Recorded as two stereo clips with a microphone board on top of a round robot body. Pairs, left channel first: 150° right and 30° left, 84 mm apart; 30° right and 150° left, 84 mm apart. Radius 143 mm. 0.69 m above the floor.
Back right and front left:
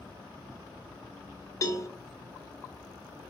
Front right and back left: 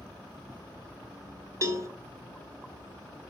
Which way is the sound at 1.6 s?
Straight behind.